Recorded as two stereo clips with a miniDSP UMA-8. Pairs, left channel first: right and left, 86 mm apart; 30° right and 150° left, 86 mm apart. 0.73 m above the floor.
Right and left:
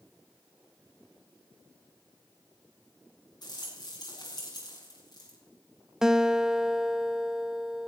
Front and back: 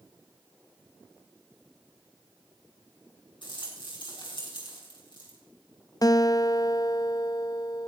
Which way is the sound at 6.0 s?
5° left.